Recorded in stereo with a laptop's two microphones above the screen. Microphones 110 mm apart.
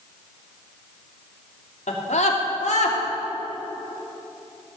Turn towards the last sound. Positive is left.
turn(degrees=80)